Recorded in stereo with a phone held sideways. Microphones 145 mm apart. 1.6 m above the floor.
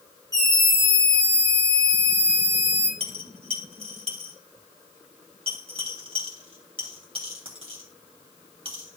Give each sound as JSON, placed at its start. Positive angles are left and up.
{"t": 0.3, "sound": "a scream", "side_deg": -25, "distance_m": 4.5}
{"t": 3.0, "sound": "a dropped coin", "side_deg": -40, "distance_m": 3.0}